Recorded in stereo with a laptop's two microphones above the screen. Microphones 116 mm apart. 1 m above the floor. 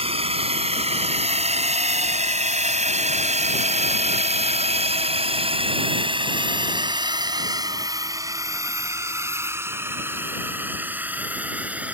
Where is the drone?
60° right (ahead or behind); by 11.9 s 10° right (ahead or behind).